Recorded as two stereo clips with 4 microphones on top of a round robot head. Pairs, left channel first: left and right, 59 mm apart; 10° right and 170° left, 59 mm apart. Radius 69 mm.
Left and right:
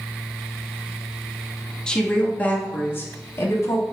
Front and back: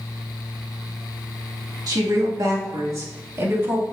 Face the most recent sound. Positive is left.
turn(degrees=120)